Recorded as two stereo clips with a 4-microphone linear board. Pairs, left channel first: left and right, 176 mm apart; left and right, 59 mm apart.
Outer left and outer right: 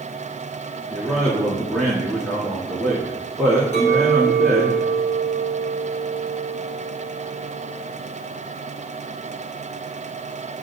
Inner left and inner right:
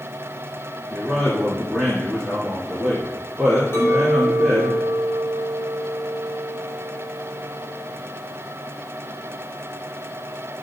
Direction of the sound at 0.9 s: Centre (ahead or behind).